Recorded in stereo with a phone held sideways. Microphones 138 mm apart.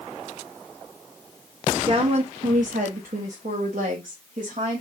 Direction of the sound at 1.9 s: 35° right (ahead or behind).